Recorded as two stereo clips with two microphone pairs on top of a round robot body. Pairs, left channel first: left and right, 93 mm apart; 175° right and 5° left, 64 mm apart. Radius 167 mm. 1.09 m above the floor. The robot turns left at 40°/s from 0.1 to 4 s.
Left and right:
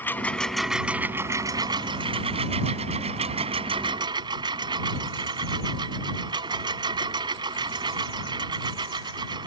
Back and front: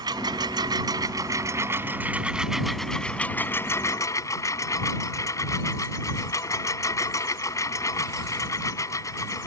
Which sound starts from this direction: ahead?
A lawn mower, at 0.0 s.